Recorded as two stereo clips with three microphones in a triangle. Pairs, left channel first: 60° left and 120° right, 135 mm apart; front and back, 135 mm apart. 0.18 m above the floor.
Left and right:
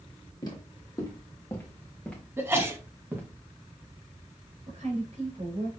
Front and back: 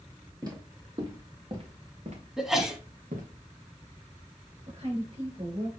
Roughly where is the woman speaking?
Behind right.